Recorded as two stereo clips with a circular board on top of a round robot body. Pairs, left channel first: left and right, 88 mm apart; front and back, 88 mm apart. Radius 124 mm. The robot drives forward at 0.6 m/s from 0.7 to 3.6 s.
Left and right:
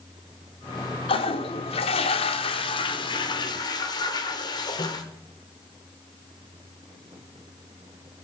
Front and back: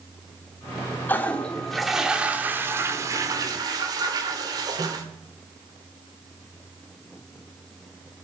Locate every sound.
1.1 s a toilet flushing: 70° left, 1.3 m; by 5.0 s 135° left, 1.7 m